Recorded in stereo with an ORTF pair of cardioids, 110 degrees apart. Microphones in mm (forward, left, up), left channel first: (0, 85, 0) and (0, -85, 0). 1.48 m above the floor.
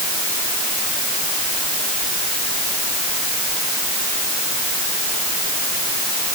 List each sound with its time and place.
Only background noise.